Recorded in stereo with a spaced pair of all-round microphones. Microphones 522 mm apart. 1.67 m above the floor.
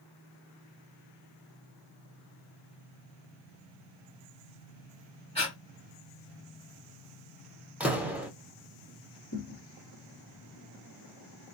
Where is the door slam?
5° right (ahead or behind), 0.7 m.